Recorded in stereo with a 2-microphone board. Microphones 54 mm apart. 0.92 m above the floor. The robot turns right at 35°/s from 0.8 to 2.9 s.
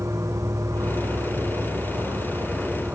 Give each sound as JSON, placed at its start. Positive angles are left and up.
{"t": 0.0, "sound": "an insect", "azimuth_deg": -105, "distance_m": 3.5}